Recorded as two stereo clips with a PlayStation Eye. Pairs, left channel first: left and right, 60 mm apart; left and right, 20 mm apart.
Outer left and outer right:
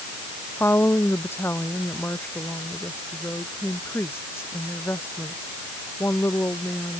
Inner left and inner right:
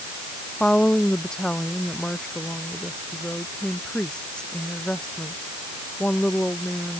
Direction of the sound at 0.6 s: 40° left (ahead or behind).